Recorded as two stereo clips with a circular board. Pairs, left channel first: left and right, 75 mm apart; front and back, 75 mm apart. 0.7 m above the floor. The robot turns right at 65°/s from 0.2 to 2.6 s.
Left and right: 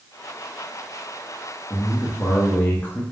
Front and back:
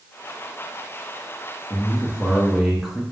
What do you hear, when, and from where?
1.7 s a man speaking: 40° left, 0.8 m; by 3.0 s 100° left, 0.8 m